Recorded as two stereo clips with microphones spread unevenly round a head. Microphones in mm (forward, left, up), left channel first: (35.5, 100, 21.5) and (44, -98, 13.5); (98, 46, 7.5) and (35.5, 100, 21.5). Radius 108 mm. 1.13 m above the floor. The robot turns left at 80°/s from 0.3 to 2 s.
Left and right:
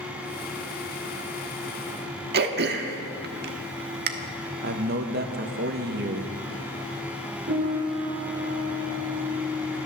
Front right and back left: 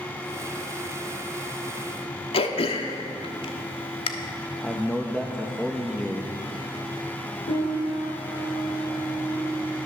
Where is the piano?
40° right, 5.5 m.